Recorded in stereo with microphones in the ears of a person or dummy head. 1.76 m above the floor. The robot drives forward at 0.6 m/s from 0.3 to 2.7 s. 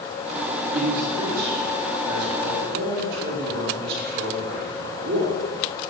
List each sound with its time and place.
0.7 s a man speaking: 55° right (ahead or behind), 3.5 m; by 5.3 s 70° right (ahead or behind), 3 m